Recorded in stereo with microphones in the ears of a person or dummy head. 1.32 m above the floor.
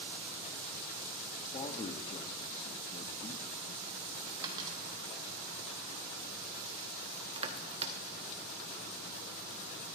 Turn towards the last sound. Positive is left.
turn(degrees=-30)  # may be behind; listen again after turning